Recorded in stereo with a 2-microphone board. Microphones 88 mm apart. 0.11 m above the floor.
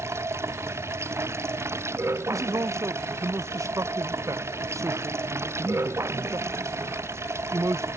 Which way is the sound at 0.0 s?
30° right (ahead or behind).